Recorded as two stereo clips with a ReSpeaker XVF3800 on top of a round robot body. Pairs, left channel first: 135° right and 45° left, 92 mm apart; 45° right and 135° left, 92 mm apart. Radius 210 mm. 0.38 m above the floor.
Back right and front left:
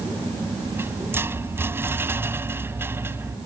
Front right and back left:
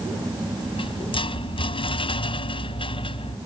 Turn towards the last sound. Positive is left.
turn(degrees=-20)